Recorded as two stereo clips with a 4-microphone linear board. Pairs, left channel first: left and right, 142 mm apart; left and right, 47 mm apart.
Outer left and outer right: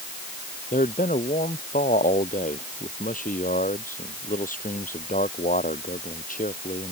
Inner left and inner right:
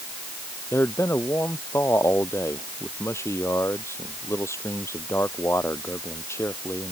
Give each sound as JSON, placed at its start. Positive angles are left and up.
{"t": 0.7, "sound": "a man speaking", "side_deg": 85}